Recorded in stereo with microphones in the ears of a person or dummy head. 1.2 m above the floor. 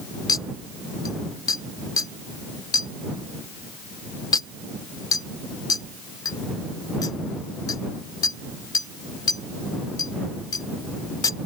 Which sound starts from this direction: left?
A clink, at 0.3 s.